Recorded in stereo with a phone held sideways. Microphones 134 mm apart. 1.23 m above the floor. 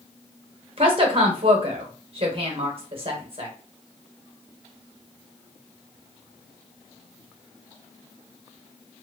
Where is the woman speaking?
45° right (ahead or behind), 1.1 m.